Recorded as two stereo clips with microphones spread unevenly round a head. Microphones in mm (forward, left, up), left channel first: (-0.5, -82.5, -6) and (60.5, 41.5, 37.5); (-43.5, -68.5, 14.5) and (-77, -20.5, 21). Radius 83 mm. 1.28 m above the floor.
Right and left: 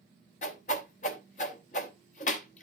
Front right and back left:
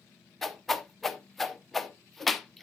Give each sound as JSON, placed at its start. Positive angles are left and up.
{"t": 0.4, "sound": "a whoosh", "azimuth_deg": -150, "distance_m": 0.8}